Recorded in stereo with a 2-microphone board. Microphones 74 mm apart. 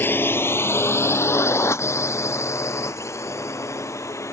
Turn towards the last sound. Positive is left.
turn(degrees=40)  # may be behind; listen again after turning